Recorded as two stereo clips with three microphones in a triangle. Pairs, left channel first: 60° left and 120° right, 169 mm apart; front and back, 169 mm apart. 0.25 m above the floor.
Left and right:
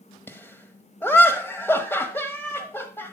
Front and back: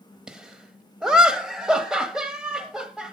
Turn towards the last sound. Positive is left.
turn(degrees=105)